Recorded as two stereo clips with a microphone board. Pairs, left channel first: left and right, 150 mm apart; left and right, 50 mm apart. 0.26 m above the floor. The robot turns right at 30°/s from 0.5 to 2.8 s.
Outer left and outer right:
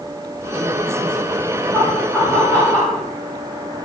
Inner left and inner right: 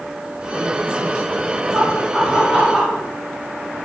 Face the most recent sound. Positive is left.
turn(degrees=5)  # may be behind; listen again after turning